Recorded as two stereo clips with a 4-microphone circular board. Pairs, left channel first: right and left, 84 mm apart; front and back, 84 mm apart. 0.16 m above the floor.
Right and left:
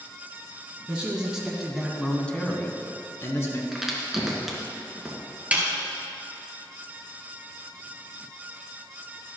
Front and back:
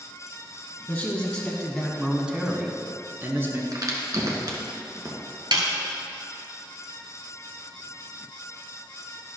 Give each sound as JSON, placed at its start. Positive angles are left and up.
{"t": 0.9, "sound": "a man speaking", "azimuth_deg": 45, "distance_m": 1.2}
{"t": 3.7, "sound": "a crack", "azimuth_deg": 175, "distance_m": 2.0}
{"t": 5.5, "sound": "a snare drum", "azimuth_deg": 160, "distance_m": 1.5}